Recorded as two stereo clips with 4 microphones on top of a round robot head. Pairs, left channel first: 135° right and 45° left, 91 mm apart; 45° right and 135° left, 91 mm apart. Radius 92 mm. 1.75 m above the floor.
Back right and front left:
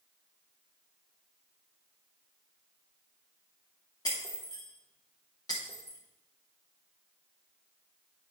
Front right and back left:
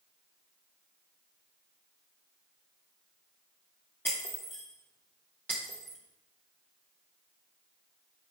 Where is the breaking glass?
115° right, 0.8 m.